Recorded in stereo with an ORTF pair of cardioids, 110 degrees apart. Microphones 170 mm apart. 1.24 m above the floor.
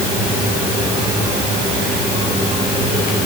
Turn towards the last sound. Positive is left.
No sound to turn to.